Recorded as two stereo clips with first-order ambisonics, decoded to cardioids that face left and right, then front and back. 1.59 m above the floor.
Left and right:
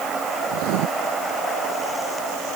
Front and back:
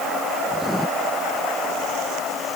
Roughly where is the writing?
Right.